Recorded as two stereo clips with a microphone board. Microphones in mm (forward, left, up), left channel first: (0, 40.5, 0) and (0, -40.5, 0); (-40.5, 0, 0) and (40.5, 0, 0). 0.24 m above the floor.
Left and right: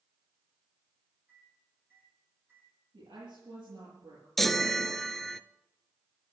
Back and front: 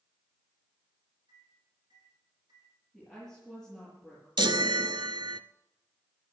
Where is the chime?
Straight ahead, 0.5 m.